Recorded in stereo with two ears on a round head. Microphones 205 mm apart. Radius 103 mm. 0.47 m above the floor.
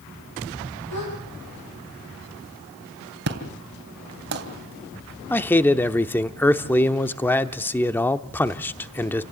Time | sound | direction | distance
0.9 | a gasp | 85° left | 7.5 m
3.3 | an explosion | 50° right (ahead or behind) | 3 m
5.3 | a man speaking | 10° left (ahead or behind) | 0.7 m